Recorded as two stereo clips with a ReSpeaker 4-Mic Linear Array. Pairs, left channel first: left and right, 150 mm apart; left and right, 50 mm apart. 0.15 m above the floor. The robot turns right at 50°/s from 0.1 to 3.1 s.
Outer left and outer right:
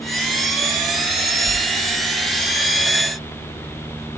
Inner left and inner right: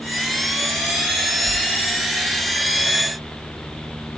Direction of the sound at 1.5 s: 35° right (ahead or behind).